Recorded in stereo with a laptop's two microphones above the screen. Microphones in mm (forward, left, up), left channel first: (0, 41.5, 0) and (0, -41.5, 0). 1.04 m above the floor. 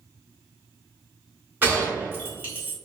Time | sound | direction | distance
1.6 | a gunshot | 25° right (ahead or behind) | 1.5 m